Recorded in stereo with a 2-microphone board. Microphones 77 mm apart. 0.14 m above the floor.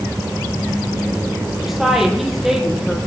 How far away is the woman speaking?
About 5 m.